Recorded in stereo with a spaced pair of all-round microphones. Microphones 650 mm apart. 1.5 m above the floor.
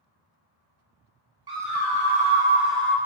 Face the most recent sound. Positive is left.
turn(degrees=5)  # may be behind; listen again after turning